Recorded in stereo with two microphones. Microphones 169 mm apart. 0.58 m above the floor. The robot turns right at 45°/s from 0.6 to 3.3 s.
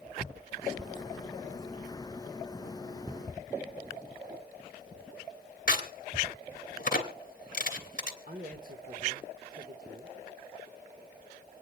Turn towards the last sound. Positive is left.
turn(degrees=-60)  # may be behind; listen again after turning